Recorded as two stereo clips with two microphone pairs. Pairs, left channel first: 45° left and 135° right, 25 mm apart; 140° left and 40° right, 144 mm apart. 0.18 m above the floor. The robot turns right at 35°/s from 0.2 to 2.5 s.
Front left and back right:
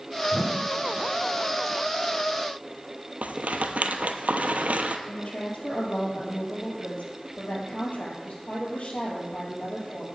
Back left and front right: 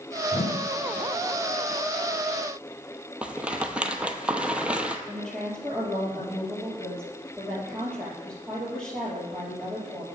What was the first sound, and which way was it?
A whoosh, 135° left.